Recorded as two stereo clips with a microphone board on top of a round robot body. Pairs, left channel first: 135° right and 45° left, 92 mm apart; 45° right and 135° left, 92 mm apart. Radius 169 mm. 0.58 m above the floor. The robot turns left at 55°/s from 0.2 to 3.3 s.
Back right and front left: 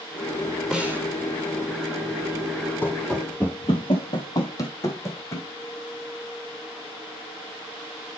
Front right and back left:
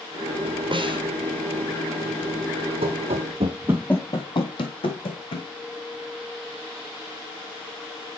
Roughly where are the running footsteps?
Behind left.